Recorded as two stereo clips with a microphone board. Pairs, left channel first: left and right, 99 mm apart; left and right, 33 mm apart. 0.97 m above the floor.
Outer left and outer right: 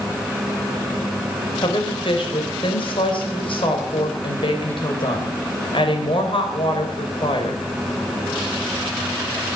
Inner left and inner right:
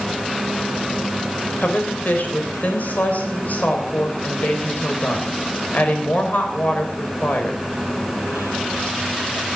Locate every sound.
1.6 s a woman speaking: 60° left (ahead or behind), 4 m